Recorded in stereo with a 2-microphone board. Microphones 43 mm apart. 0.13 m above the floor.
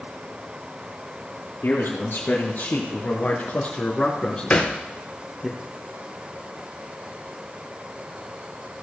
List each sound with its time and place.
1.6 s a man speaking: 50° left (ahead or behind), 3 m; by 5.5 s 5° right (ahead or behind), 1.6 m
4.5 s a thud: 40° left (ahead or behind), 1.4 m